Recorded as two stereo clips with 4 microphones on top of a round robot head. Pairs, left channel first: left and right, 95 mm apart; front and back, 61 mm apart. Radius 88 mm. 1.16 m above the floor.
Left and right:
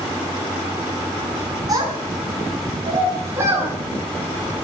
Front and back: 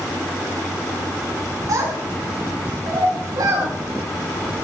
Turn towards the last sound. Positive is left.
turn(degrees=-155)